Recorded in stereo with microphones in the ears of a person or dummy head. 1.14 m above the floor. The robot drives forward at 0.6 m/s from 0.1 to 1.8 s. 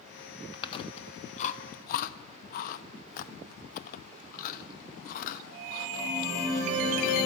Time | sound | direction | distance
0.5 | chewing | 25° left (ahead or behind) | 1.3 m